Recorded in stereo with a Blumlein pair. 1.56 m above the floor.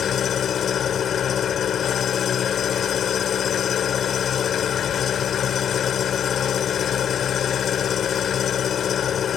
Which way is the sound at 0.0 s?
25° left.